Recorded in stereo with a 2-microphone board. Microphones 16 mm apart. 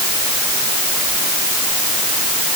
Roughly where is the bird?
I don't hear a bird.